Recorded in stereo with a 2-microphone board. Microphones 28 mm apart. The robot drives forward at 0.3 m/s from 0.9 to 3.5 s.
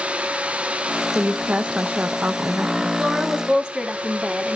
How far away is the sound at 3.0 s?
About 1.9 m.